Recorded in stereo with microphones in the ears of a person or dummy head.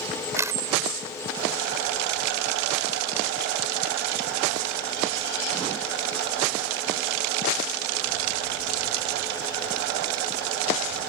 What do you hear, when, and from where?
0.4 s a camera shutter: 15° right (ahead or behind)